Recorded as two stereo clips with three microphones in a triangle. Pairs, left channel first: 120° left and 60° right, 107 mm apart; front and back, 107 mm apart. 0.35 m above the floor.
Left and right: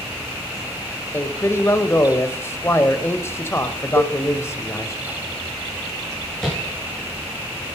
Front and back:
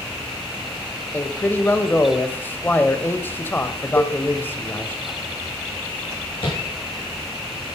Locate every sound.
1.1 s a man speaking: 65° left, 1.2 m
4.0 s a cowbell: 50° right, 2 m
6.4 s tapping: 35° left, 7 m